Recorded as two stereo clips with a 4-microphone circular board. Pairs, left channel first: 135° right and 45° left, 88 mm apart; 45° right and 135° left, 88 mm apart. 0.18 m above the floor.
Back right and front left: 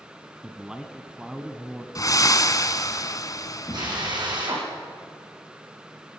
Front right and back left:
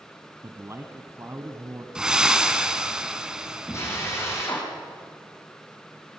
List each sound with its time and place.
0.4 s a man speaking: 120° left, 1.4 m
1.9 s breathing: 145° right, 1.2 m
3.7 s a drill: 15° left, 7 m